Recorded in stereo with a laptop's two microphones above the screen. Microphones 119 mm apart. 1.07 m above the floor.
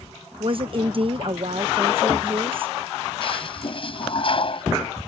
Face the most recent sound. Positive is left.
turn(degrees=50)  # may be behind; listen again after turning